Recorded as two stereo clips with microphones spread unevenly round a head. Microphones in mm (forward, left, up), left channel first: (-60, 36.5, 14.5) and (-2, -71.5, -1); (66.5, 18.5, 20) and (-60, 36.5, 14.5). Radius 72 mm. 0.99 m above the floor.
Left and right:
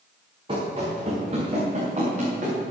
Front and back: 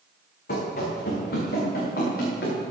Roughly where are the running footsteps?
Ahead.